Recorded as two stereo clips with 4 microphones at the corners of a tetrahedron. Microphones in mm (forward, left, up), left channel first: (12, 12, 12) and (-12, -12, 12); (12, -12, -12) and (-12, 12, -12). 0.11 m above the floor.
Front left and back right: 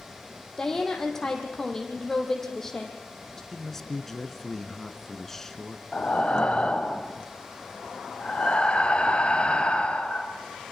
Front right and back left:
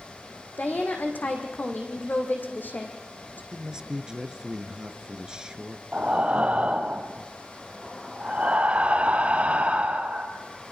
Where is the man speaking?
110° left, 1.7 m.